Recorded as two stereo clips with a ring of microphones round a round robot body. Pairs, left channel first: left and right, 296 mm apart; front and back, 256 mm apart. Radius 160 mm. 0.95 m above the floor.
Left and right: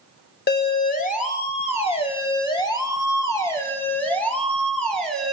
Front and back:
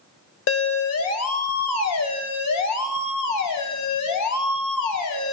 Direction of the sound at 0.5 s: 30° left.